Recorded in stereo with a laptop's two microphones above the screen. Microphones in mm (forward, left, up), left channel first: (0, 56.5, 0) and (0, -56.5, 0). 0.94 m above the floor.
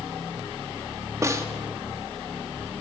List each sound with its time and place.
1.2 s a snare drum: 25° right (ahead or behind), 1.1 m